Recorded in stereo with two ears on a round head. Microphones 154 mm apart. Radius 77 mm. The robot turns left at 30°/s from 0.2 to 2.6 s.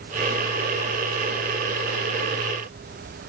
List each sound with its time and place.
Only background noise.